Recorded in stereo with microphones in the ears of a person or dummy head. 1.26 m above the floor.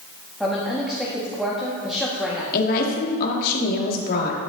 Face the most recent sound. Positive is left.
turn(degrees=50)  # may be behind; listen again after turning